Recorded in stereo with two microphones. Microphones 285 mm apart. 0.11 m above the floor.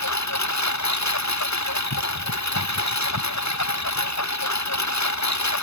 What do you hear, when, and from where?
0.0 s a lawn mower: 70° left (ahead or behind)